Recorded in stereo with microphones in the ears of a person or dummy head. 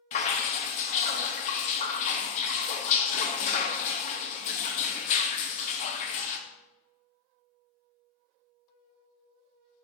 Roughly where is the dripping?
Left.